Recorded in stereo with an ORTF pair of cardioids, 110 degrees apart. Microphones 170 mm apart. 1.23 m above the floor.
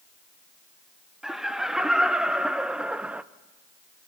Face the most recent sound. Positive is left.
turn(degrees=-10)